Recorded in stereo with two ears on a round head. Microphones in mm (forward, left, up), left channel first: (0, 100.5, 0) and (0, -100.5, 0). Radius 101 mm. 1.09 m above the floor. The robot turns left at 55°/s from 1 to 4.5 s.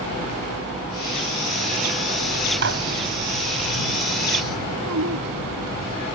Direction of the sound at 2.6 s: 55° right (ahead or behind).